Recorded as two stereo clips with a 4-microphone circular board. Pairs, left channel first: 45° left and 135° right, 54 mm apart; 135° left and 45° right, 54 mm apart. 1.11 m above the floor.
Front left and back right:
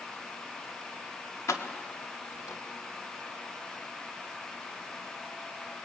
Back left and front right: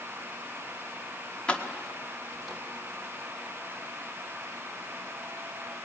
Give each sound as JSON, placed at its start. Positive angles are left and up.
{"t": 1.5, "sound": "keys jangling", "azimuth_deg": 65, "distance_m": 1.6}